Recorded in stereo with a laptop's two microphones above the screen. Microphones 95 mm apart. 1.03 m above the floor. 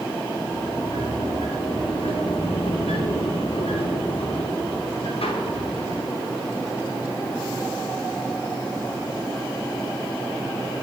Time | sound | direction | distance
0.5 | a sliding door | 85° left | 3 m